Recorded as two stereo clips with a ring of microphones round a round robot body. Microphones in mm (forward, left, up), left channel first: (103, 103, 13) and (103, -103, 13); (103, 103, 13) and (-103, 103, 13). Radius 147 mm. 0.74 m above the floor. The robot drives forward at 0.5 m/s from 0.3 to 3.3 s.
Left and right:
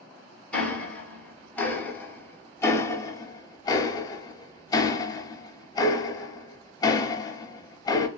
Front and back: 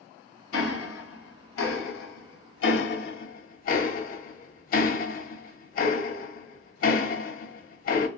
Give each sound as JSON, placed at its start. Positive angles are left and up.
{"t": 0.5, "sound": "ticking", "azimuth_deg": 5, "distance_m": 1.8}